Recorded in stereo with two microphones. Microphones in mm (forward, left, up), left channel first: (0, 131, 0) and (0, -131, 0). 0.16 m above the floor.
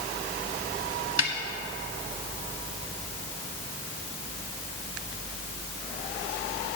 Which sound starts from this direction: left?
A snare drum, at 1.2 s.